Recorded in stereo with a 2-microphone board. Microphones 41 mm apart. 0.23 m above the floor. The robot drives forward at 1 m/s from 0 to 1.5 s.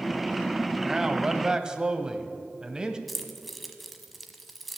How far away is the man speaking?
About 1.3 m.